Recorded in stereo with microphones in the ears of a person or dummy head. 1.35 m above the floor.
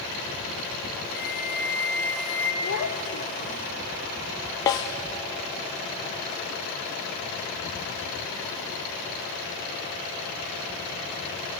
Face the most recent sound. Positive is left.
turn(degrees=15)  # may be behind; listen again after turning